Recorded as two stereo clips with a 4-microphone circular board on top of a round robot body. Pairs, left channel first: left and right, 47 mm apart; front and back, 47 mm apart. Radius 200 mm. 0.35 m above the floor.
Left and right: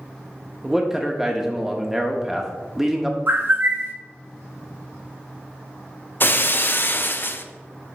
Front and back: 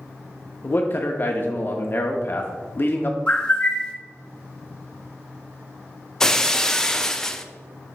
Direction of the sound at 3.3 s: 65° right.